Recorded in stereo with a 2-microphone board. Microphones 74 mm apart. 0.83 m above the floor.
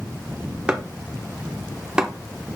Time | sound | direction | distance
0.7 | chopping | 15° right (ahead or behind) | 1.1 m